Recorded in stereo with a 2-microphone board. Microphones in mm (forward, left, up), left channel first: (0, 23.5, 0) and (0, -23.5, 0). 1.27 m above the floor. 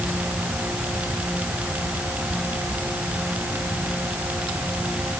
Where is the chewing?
I don't hear chewing.